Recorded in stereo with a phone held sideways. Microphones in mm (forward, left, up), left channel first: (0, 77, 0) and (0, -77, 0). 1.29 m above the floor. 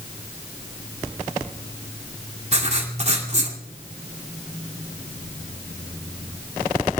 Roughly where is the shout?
No shout in this recording.